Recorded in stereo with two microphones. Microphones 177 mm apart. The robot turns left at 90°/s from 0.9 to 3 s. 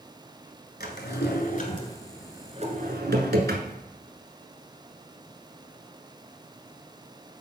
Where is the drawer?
65° left (ahead or behind), 1.1 m; by 3.8 s 75° right (ahead or behind), 1.1 m.